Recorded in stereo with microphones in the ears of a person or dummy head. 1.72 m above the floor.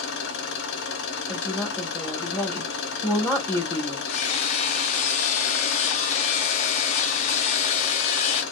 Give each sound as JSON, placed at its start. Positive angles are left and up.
{"t": 0.0, "sound": "an engine running", "side_deg": 60, "distance_m": 0.8}
{"t": 1.3, "sound": "a woman speaking", "side_deg": 10, "distance_m": 1.7}
{"t": 4.1, "sound": "hammering", "side_deg": 40, "distance_m": 0.5}